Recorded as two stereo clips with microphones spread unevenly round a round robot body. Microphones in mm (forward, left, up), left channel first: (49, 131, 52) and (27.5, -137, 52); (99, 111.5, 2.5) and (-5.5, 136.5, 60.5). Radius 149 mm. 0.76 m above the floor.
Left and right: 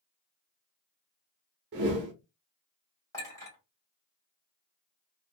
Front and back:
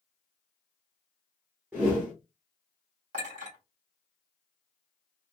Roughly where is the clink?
Behind.